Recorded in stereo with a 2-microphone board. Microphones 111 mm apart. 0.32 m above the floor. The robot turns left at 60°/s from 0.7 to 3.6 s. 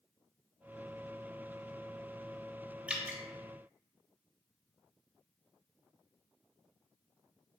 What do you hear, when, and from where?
2.9 s dripping: 10° right (ahead or behind), 0.7 m; by 3.2 s 25° right (ahead or behind), 0.7 m